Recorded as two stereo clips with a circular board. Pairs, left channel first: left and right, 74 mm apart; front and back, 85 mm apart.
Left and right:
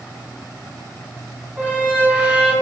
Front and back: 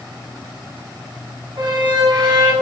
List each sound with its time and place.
1.6 s a squeak: 155° right, 1.3 m